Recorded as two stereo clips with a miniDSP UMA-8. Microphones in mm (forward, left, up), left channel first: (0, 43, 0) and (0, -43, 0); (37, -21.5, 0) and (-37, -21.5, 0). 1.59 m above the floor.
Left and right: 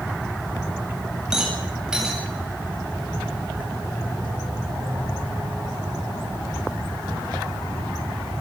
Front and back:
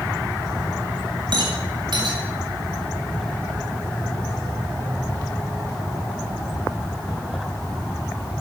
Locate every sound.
1.3 s a rattle: 175° right, 8 m